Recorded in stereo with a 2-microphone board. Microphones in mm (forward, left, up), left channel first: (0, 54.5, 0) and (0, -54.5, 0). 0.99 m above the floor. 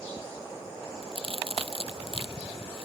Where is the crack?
60° right (ahead or behind).